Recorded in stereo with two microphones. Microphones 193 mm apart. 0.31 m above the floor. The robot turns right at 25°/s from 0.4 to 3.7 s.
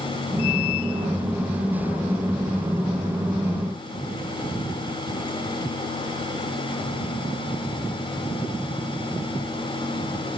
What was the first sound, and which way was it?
Only background noise.